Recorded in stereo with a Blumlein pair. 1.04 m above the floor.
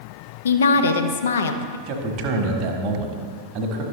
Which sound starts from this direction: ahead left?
A woman speaking, at 0.5 s.